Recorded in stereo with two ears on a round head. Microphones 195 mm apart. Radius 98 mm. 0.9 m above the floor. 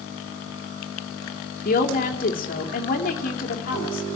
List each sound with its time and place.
1.6 s a woman speaking: 40° left (ahead or behind), 2 m